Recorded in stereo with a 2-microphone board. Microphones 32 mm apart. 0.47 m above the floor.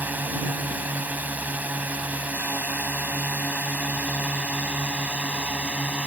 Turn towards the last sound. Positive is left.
turn(degrees=-45)  # may be behind; listen again after turning